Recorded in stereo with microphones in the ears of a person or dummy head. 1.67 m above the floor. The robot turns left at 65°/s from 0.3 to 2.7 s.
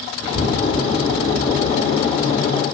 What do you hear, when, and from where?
0.2 s a child speaking: 50° right (ahead or behind), 3 m; by 2.5 s 80° left, 3 m